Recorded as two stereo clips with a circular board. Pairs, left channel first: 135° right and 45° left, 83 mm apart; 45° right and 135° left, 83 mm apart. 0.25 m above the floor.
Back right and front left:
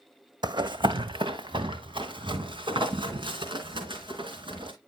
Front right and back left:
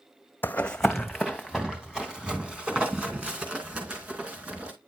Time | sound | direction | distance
0.4 | running footsteps | 20° left | 0.7 m